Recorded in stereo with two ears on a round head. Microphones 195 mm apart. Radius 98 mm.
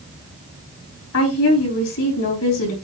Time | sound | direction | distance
1.1 | a woman speaking | 75° left (ahead or behind) | 4 m